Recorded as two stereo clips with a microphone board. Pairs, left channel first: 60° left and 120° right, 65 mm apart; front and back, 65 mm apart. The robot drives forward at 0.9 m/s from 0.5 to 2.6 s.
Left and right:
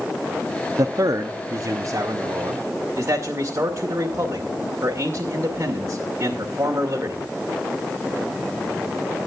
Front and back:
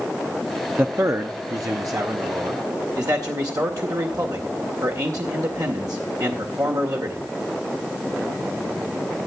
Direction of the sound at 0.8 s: 125° right.